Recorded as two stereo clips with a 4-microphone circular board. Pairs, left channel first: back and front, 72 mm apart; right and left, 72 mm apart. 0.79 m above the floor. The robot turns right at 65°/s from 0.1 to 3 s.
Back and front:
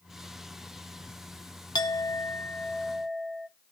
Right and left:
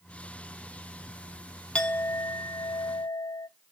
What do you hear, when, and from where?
1.8 s a clink: 165° right, 0.6 m; by 3.5 s 85° right, 0.6 m